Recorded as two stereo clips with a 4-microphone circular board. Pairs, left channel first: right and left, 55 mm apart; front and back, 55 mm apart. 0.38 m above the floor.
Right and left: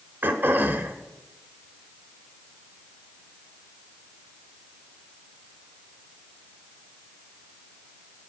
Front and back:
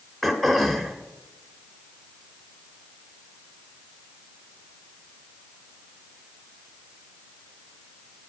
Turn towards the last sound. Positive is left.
turn(degrees=85)